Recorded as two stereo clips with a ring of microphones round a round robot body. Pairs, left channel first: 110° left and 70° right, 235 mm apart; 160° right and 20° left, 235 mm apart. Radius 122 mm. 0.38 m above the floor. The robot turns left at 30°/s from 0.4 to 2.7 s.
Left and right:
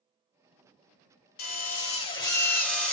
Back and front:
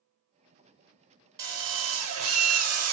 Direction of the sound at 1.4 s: 65° left.